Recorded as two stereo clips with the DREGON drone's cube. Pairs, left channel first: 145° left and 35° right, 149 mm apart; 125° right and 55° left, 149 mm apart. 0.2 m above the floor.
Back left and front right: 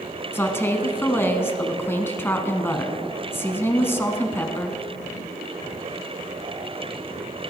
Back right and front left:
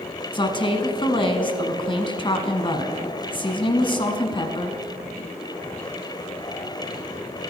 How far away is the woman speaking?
About 1.2 m.